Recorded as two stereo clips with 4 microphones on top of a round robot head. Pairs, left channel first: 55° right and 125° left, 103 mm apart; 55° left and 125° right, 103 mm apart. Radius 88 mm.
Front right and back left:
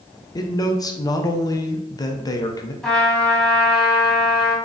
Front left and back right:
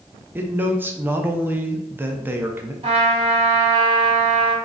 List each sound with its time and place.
0.3 s a man speaking: 65° right, 0.6 m
2.8 s a trumpet: 140° right, 1.2 m